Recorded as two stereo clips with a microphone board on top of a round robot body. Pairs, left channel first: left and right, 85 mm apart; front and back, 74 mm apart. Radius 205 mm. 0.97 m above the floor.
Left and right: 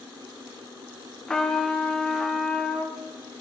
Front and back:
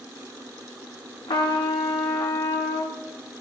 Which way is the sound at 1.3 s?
10° left.